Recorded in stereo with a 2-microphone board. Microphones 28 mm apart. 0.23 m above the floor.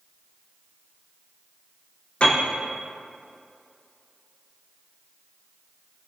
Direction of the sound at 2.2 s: 50° left (ahead or behind).